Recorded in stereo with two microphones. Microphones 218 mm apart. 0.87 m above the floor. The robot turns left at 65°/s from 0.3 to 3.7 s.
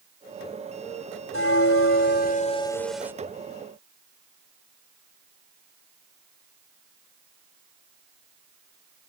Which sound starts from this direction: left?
A bell, at 1.3 s.